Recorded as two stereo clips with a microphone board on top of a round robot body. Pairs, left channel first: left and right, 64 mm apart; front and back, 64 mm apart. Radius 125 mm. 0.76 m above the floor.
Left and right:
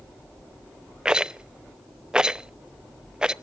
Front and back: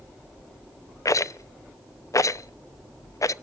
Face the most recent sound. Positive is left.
turn(degrees=-15)